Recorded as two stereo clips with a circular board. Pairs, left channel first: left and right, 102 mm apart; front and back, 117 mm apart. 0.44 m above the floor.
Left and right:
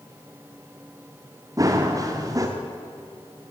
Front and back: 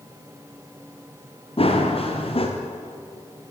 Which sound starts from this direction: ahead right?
Running footsteps, at 1.6 s.